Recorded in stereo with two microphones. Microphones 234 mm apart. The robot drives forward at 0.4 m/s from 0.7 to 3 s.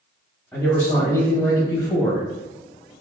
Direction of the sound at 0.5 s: 10° left (ahead or behind).